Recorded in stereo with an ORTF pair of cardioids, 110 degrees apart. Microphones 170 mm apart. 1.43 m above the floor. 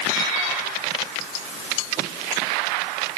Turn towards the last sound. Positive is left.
No sound to turn to.